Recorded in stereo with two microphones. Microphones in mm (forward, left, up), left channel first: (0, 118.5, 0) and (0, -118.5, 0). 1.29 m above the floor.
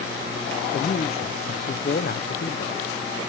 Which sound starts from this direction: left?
A man speaking, at 0.7 s.